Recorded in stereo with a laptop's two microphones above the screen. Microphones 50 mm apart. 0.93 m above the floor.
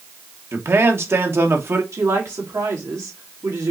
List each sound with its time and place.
0.5 s a man speaking: 50° right (ahead or behind), 1.1 m
1.9 s a woman speaking: 80° right, 2.5 m